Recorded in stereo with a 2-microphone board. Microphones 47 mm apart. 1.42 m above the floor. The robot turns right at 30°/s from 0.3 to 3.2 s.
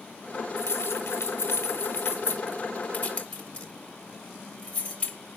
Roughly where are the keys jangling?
Left.